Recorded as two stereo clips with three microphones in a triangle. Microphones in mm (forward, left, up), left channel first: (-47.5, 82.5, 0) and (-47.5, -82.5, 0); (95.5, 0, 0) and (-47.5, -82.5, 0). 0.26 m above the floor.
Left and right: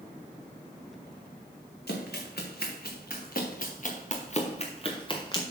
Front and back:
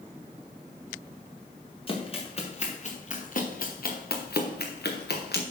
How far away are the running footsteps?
About 2.5 m.